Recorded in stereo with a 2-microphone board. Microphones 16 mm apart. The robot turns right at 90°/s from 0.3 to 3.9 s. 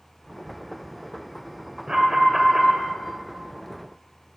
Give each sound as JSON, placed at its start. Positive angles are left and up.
{"t": 1.9, "sound": "an alarm", "azimuth_deg": -85, "distance_m": 1.4}